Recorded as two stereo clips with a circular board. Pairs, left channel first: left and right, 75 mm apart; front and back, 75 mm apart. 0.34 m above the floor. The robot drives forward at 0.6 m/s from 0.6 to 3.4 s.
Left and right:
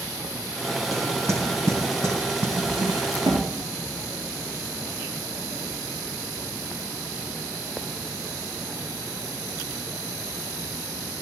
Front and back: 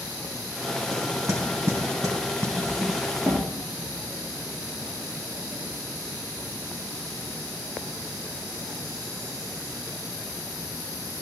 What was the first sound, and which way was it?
Knocking, 130° right.